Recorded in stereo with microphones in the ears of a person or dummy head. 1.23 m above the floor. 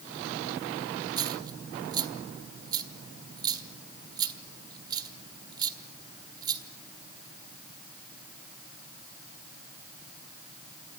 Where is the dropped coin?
25° right (ahead or behind), 1.5 m.